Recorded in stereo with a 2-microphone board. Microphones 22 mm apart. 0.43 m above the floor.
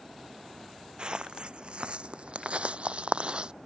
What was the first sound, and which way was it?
Footsteps, 45° right (ahead or behind).